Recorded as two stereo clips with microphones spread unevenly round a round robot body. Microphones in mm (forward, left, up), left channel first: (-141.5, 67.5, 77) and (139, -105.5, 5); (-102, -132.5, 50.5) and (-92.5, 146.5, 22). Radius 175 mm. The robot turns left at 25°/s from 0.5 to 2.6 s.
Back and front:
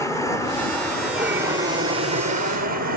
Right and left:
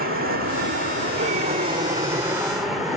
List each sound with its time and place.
0.0 s an aircraft: 55° left; by 3.0 s 5° left